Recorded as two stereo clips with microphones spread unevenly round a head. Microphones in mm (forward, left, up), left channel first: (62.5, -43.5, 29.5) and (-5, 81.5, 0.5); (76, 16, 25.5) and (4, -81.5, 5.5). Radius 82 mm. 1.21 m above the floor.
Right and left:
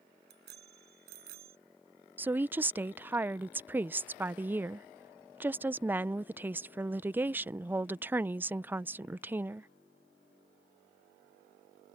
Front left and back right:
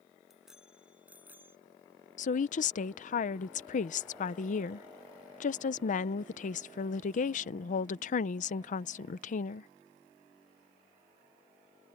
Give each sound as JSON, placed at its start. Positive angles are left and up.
{"t": 0.3, "sound": "a bicycle bell", "azimuth_deg": 145}
{"t": 2.2, "sound": "a woman speaking", "azimuth_deg": 50}